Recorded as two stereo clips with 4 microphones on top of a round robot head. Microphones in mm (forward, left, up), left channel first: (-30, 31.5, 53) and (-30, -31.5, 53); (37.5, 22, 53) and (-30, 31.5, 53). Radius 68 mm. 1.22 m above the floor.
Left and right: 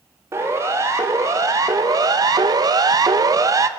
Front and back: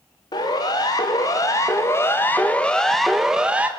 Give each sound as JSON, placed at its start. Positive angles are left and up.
{"t": 0.3, "sound": "a siren", "azimuth_deg": -35, "distance_m": 3.5}